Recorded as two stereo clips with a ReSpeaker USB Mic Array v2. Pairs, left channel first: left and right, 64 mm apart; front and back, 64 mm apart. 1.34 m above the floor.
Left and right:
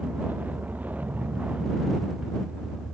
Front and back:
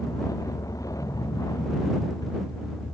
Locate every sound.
0.0 s a vehicle: 25° right